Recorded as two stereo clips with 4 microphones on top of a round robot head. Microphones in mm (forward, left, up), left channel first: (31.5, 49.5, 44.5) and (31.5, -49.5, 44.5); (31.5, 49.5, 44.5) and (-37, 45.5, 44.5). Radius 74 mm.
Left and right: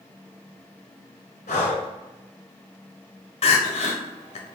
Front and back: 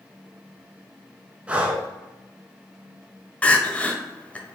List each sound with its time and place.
1.5 s breathing: 110° left, 0.8 m
3.4 s crying: 75° left, 0.8 m